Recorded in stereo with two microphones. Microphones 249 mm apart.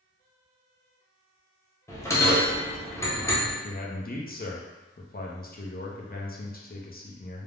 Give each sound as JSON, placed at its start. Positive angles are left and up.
{"t": 1.9, "sound": "a bell", "side_deg": 10, "distance_m": 0.7}
{"t": 3.6, "sound": "a man speaking", "side_deg": 35, "distance_m": 0.5}